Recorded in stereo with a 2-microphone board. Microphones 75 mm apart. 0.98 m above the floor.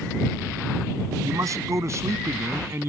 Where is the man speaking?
45° right (ahead or behind); by 2.9 s 35° right (ahead or behind).